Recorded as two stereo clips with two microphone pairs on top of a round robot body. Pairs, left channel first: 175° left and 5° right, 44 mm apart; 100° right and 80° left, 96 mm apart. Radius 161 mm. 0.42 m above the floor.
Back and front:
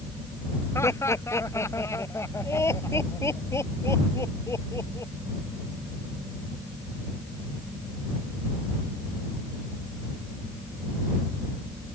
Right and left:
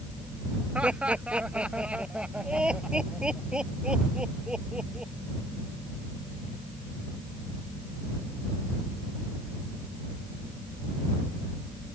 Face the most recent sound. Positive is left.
turn(degrees=165)